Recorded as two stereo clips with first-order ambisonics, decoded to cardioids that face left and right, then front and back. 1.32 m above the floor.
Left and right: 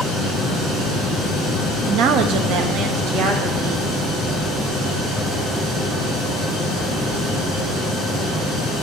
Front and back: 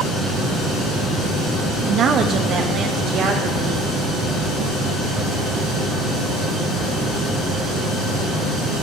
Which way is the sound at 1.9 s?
115° right.